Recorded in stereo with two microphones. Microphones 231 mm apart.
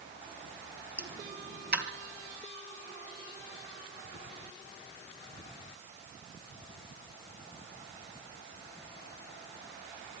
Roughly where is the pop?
Right.